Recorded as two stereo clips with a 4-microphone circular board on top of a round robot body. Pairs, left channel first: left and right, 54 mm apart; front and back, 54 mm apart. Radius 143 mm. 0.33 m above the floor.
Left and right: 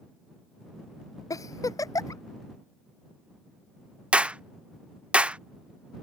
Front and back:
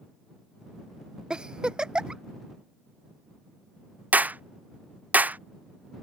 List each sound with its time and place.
1.3 s a giggle: 105° left
4.1 s a clap: 145° right